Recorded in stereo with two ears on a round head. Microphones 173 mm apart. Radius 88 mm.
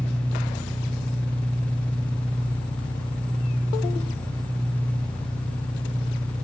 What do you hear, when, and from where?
0.0 s an engine running: 20° left (ahead or behind), 0.9 m